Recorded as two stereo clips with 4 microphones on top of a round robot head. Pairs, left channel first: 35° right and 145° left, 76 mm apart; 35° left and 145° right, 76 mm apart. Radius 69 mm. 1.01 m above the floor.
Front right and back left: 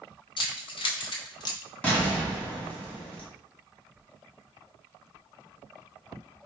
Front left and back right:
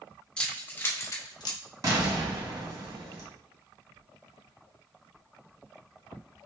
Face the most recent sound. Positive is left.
turn(degrees=-110)